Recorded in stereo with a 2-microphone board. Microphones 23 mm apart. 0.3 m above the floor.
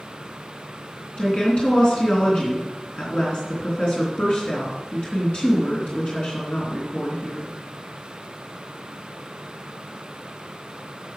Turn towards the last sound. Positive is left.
turn(degrees=55)  # may be behind; listen again after turning